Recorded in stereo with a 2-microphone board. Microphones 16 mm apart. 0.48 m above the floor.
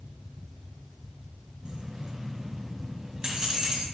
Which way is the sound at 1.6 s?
80° right.